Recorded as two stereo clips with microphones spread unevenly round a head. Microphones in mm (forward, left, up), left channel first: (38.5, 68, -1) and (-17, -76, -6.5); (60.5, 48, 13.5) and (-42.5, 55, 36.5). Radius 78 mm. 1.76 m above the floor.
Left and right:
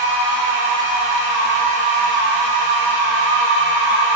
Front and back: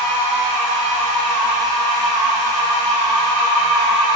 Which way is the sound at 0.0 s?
65° left.